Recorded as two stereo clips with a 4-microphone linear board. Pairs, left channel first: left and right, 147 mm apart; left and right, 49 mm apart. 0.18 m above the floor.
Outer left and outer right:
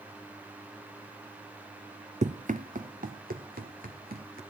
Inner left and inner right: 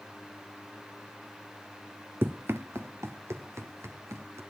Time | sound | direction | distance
2.2 | running footsteps | 50° right (ahead or behind) | 0.7 m